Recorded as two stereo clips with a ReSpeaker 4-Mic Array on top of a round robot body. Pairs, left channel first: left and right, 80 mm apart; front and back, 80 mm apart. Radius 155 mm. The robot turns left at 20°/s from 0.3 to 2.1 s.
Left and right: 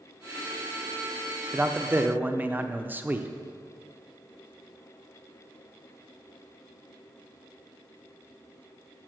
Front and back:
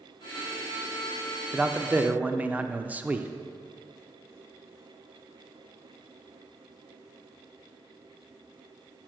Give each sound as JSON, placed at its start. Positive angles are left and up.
{"t": 1.5, "sound": "a man speaking", "azimuth_deg": -120, "distance_m": 0.9}